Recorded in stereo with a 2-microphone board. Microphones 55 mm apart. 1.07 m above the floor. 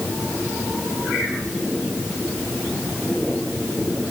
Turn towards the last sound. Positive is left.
No sound to turn to.